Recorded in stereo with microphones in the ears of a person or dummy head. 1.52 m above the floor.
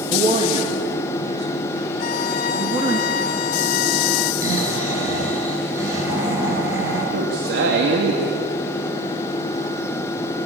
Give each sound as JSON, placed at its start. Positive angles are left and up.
{"t": 0.1, "sound": "a man speaking", "side_deg": -30, "distance_m": 2.0}
{"t": 2.0, "sound": "a violin", "side_deg": 50, "distance_m": 0.6}
{"t": 4.4, "sound": "snoring", "side_deg": -20, "distance_m": 8.0}
{"t": 7.1, "sound": "a man speaking", "side_deg": -70, "distance_m": 2.5}